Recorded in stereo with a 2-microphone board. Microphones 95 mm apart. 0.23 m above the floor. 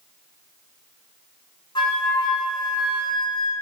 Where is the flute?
50° left (ahead or behind), 1.0 m.